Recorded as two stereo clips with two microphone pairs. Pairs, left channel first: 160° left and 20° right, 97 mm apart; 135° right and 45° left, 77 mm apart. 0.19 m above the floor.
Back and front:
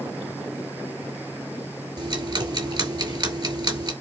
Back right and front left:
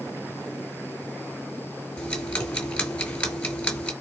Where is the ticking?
60° right, 2.5 m.